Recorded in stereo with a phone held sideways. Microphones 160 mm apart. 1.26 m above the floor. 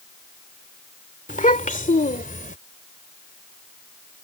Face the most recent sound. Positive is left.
turn(degrees=60)  # may be behind; listen again after turning